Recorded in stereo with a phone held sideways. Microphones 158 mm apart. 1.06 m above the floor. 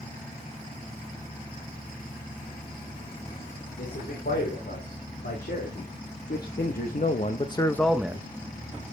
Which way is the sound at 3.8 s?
85° left.